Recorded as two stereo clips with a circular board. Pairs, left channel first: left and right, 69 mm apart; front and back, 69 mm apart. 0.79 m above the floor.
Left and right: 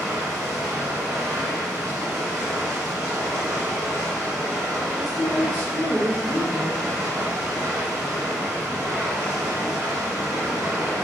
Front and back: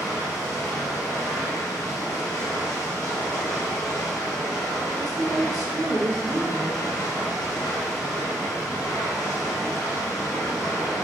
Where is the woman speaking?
175° left, 0.8 m.